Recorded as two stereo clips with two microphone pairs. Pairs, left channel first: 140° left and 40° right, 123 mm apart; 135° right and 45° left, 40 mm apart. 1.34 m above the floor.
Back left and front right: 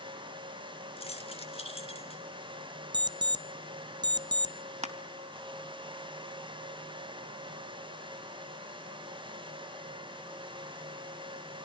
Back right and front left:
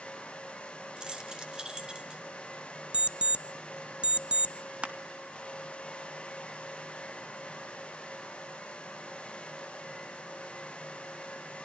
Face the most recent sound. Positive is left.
turn(degrees=-20)